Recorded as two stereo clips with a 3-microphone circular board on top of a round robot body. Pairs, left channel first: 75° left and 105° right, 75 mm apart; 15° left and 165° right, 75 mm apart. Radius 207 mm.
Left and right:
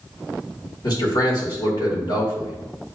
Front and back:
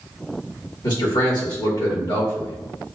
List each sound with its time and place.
0.8 s a man speaking: 40° left, 1.9 m